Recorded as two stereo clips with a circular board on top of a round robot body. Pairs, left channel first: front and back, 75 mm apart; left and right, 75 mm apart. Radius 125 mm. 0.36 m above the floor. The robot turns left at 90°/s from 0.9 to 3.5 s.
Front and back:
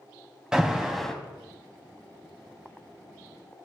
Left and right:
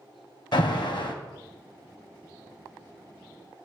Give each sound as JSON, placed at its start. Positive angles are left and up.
{"t": 0.5, "sound": "an alarm", "azimuth_deg": 100, "distance_m": 1.9}